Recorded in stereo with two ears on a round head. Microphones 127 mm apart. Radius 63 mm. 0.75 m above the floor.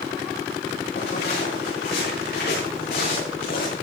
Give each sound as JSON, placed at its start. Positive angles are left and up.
{"t": 1.0, "sound": "footsteps", "side_deg": 80, "distance_m": 8.0}